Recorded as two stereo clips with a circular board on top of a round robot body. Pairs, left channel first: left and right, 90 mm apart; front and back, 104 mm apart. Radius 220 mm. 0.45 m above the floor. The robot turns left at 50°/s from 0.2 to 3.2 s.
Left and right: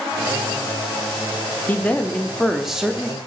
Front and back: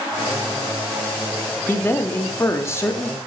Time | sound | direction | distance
1.7 | a man speaking | 45° left | 0.7 m